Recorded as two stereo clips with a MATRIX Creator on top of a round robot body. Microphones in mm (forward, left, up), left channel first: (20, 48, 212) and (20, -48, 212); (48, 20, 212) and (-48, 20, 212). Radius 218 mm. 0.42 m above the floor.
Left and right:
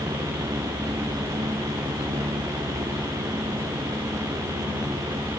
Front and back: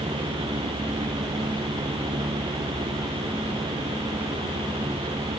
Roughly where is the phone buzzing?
No phone buzzing in this recording.